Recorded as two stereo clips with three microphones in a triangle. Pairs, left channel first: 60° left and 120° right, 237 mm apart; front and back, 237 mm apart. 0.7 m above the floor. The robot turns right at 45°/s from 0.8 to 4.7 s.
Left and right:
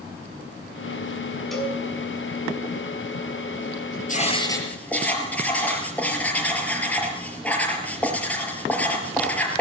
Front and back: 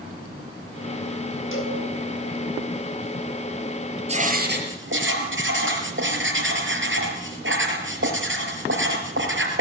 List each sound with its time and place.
1.5 s a cowbell: 30° right, 5.5 m; by 1.8 s 15° right, 5.5 m
4.1 s writing: 115° left, 4.5 m; by 9.6 s 145° left, 4.5 m